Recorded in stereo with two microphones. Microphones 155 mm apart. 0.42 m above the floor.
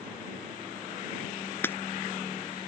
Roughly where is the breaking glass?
Centre.